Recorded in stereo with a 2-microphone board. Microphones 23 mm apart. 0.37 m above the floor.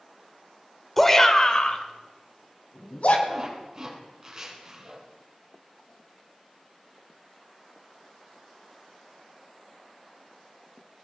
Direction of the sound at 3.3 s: 30° right (ahead or behind).